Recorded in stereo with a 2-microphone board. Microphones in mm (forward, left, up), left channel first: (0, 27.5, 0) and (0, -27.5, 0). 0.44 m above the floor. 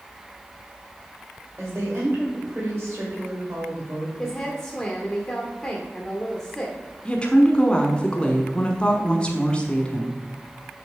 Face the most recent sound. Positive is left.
turn(degrees=20)  # may be behind; listen again after turning